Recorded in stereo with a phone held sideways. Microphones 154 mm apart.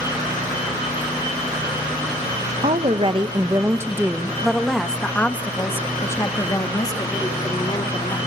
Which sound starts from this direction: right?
A woman speaking, at 2.6 s.